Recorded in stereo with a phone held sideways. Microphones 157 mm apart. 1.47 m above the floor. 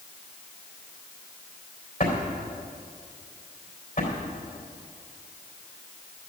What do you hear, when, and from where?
2.0 s a drawer: 60° left (ahead or behind), 3.5 m